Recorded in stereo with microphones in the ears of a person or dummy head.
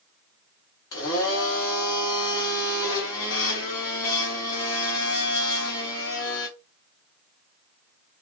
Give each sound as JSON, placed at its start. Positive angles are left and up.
{"t": 0.9, "sound": "a blender", "side_deg": 25, "distance_m": 0.8}